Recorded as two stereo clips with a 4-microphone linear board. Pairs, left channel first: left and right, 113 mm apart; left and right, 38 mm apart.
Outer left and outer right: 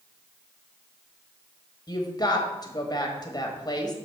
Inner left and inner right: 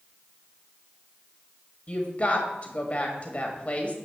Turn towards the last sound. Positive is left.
turn(degrees=35)  # may be behind; listen again after turning